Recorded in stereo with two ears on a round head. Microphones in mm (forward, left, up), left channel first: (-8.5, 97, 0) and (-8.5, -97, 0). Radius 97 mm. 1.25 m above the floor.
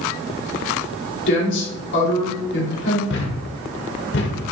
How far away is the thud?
About 1.4 m.